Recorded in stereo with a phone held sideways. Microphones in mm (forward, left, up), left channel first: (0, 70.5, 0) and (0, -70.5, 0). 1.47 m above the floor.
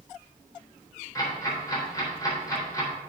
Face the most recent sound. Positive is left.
turn(degrees=25)  # may be behind; listen again after turning